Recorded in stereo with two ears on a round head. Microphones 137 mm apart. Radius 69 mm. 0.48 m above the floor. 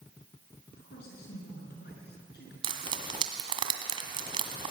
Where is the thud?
No thud in this recording.